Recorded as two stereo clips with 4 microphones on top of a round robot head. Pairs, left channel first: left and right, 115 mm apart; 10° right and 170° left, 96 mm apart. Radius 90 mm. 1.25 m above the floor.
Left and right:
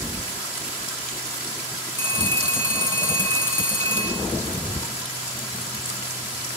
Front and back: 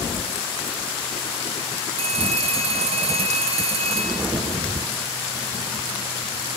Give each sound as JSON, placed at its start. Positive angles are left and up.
{"t": 2.0, "sound": "a phone ringing", "azimuth_deg": 160, "distance_m": 2.0}